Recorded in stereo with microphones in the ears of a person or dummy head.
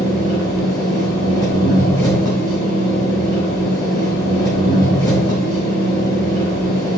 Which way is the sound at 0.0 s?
25° left (ahead or behind).